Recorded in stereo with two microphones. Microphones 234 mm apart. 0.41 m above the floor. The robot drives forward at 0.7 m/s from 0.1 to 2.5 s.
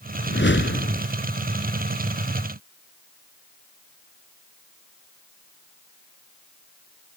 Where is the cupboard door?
No cupboard door in this recording.